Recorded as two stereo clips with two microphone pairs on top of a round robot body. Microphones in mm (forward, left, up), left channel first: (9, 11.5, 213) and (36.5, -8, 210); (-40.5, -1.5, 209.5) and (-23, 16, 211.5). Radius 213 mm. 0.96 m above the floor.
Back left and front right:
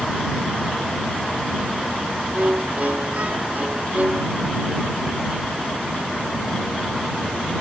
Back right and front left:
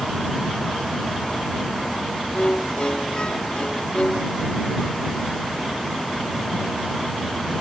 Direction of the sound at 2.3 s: 80° right.